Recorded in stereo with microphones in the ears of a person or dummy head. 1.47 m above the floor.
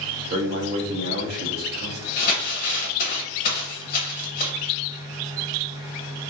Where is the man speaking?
45° right (ahead or behind), 0.8 m.